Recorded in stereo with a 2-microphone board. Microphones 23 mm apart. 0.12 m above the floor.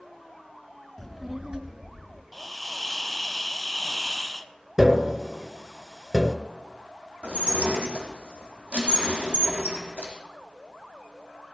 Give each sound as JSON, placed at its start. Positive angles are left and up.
{"t": 1.0, "sound": "a child speaking", "side_deg": 20, "distance_m": 0.7}
{"t": 2.3, "sound": "a hiss", "side_deg": 0, "distance_m": 0.7}
{"t": 4.8, "sound": "tapping", "side_deg": -20, "distance_m": 1.0}
{"t": 7.2, "sound": "dishes clattering", "side_deg": -75, "distance_m": 3.5}